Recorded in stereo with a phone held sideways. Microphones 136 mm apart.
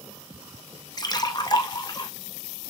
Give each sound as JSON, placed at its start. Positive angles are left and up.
{"t": 1.0, "sound": "a splash", "side_deg": 30, "distance_m": 0.6}